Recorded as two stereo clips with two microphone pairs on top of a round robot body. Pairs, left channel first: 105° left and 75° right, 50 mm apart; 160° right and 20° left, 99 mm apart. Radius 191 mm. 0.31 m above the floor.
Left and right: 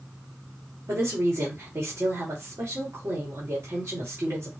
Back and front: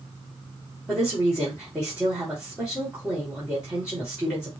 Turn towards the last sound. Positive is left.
turn(degrees=-60)